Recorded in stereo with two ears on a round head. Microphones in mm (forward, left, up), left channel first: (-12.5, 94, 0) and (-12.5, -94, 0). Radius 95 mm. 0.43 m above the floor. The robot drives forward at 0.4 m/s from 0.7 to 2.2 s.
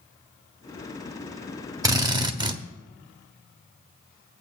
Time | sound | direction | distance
1.8 | a drill | 15° right (ahead or behind) | 0.8 m